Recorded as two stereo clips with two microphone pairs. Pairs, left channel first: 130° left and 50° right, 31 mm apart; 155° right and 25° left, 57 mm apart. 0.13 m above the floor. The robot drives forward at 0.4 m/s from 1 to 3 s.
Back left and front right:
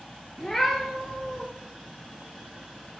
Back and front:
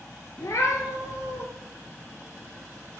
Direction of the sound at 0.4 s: 155° right.